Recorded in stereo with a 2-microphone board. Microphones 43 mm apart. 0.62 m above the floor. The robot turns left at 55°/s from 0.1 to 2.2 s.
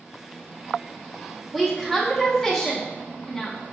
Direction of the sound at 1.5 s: 5° right (ahead or behind).